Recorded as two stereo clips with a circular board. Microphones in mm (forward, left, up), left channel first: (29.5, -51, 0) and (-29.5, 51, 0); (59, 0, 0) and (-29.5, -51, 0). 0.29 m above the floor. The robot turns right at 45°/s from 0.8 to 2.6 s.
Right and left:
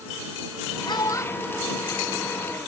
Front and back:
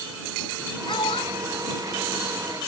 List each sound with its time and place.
0.9 s a child speaking: 10° right; by 2.7 s 65° left